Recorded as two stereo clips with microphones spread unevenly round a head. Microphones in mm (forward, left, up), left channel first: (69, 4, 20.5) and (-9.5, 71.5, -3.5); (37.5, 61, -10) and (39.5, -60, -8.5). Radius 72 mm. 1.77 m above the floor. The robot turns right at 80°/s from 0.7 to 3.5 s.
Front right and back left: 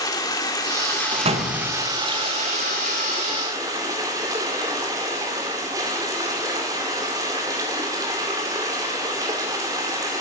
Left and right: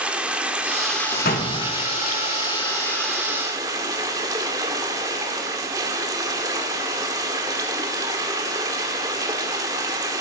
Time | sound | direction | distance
0.0 | running water | 10° right | 2 m
1.1 | a door slam | 95° left | 2 m